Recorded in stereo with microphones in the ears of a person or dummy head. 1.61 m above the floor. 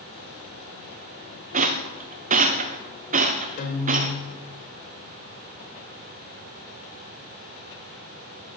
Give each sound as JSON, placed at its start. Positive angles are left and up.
{"t": 1.5, "sound": "a rattle", "side_deg": -45, "distance_m": 1.2}
{"t": 3.6, "sound": "a guitar", "side_deg": 40, "distance_m": 1.7}